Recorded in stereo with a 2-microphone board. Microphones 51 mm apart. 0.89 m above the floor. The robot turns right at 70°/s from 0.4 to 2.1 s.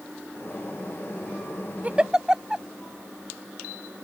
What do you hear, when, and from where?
1.8 s a giggle: 35° right (ahead or behind); by 2.6 s 15° right (ahead or behind)